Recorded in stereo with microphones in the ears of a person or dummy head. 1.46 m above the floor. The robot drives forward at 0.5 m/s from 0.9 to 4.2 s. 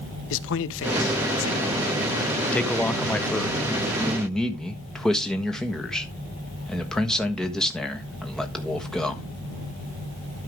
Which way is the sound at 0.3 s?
70° left (ahead or behind).